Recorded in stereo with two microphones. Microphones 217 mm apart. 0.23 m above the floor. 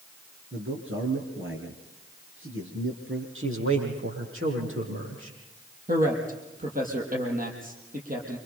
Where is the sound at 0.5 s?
65° right (ahead or behind), 4.5 m.